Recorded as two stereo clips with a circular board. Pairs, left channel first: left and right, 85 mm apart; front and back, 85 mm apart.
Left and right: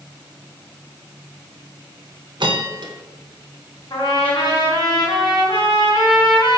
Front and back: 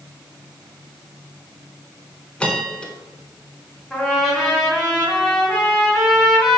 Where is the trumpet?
95° left, 1.6 m.